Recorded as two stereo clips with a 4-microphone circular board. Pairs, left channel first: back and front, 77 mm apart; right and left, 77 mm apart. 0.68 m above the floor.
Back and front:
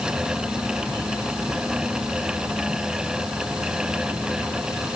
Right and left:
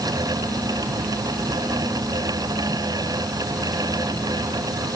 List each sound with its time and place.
Only background noise.